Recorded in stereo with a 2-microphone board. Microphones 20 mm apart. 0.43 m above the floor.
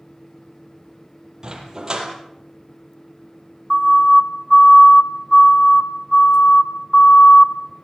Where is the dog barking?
35° right (ahead or behind), 6 m.